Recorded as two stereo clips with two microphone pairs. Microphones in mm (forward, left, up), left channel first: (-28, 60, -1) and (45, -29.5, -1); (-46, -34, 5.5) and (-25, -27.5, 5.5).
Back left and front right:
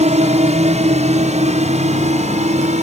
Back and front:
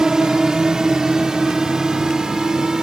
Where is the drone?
45° right.